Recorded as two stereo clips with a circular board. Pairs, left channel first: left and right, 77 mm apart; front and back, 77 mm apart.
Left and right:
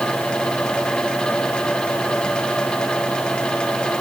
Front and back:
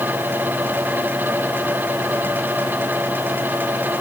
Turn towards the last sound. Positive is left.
No sound to turn to.